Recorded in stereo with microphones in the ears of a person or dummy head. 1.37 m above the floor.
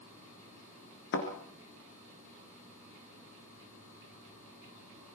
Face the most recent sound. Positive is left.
turn(degrees=60)  # may be behind; listen again after turning